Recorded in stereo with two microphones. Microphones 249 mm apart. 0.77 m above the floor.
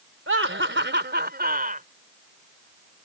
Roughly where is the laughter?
Right.